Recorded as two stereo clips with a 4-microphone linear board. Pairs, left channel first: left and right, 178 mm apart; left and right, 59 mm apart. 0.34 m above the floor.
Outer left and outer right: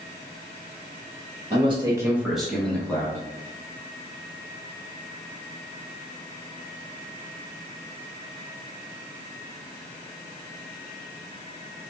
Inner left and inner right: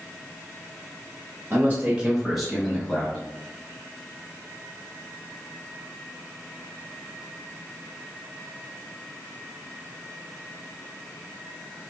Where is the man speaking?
35° right (ahead or behind), 1.0 m; by 3.2 s 15° left (ahead or behind), 2 m.